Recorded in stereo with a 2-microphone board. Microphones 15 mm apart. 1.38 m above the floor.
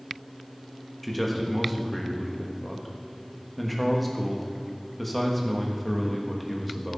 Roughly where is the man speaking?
Centre.